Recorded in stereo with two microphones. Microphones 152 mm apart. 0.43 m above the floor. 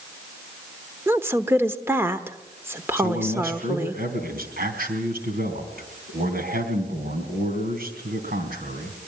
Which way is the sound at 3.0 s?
75° right (ahead or behind).